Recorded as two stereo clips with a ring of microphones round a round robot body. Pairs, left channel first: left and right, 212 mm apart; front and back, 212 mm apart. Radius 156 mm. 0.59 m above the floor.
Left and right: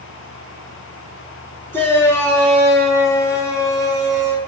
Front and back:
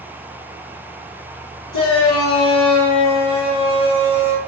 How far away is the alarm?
I don't hear an alarm.